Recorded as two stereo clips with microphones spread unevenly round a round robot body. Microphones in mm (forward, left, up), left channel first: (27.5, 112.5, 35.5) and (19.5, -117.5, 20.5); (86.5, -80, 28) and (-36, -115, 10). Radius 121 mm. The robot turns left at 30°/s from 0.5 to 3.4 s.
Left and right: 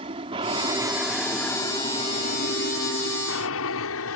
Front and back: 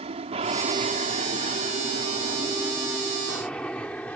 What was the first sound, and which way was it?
An aircraft, 155° right.